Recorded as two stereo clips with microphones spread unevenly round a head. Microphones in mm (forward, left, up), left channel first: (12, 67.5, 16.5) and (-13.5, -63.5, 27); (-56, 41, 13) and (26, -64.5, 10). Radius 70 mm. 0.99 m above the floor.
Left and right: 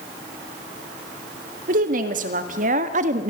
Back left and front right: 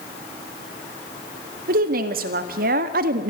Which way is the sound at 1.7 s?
70° right.